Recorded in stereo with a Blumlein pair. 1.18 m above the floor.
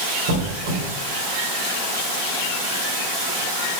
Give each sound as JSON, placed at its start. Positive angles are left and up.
{"t": 0.3, "sound": "a squeak", "azimuth_deg": -45, "distance_m": 1.8}